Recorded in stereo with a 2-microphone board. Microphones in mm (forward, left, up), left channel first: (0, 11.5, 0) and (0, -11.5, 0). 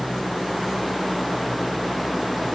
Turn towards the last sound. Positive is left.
No sound to turn to.